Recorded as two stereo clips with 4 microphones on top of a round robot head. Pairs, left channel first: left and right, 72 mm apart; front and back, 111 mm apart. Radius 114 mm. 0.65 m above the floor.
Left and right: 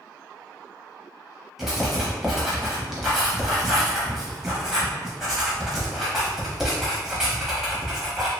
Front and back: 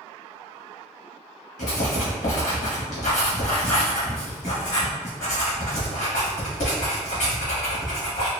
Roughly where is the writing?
Ahead.